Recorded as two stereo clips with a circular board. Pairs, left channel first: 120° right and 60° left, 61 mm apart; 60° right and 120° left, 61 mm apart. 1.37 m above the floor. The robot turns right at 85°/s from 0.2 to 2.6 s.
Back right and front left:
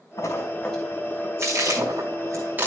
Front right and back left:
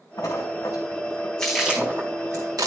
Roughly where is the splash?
Right.